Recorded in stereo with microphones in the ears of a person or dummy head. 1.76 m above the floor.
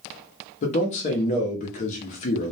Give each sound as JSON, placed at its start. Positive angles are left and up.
{"t": 0.6, "sound": "a man speaking", "side_deg": 45, "distance_m": 0.7}